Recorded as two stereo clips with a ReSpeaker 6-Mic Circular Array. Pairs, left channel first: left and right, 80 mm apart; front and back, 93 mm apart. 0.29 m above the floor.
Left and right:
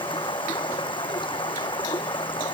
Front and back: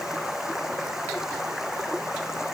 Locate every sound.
0.0 s running water: 95° left